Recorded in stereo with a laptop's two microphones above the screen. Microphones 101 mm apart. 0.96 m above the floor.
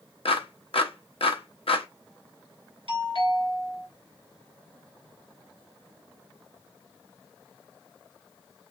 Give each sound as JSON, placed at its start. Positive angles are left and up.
{"t": 0.2, "sound": "a clap", "side_deg": 65, "distance_m": 0.8}
{"t": 2.9, "sound": "a doorbell", "side_deg": -60, "distance_m": 2.5}